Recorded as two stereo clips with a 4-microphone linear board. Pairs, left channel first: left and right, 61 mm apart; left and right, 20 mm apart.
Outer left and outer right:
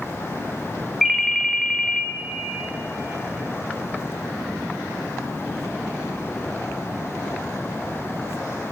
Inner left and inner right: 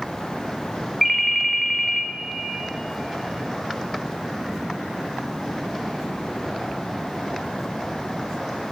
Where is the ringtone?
Centre (ahead or behind), 0.7 m.